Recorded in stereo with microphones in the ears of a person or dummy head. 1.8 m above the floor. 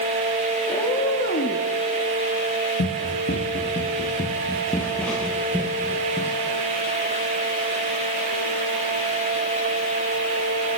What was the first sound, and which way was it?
A cat meowing, 25° left (ahead or behind).